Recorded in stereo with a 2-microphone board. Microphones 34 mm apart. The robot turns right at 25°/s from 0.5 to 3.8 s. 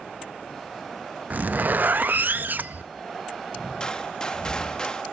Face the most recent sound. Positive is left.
turn(degrees=20)  # may be behind; listen again after turning